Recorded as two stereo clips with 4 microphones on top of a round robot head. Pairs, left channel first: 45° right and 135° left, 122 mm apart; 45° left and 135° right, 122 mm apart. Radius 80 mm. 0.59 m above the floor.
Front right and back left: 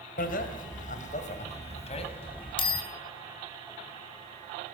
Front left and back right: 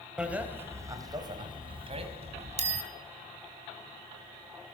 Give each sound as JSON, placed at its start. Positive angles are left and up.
{"t": 0.2, "sound": "a bicycle bell", "azimuth_deg": -50, "distance_m": 2.5}